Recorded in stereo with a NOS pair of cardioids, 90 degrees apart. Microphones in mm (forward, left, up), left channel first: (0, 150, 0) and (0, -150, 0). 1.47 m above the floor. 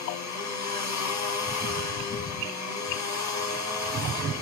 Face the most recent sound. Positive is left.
turn(degrees=65)